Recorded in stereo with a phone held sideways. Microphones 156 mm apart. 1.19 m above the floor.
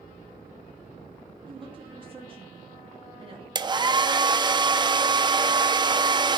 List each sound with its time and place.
1.5 s a woman speaking: 35° right (ahead or behind), 2.5 m
3.5 s a hair dryer: 30° right (ahead or behind), 0.6 m